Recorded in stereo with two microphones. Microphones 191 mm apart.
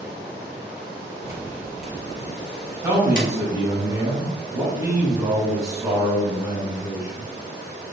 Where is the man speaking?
20° right (ahead or behind), 1.2 m.